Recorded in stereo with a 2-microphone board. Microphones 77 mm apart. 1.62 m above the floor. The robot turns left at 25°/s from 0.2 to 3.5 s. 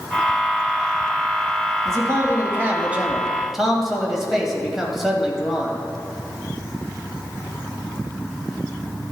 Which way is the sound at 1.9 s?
135° right.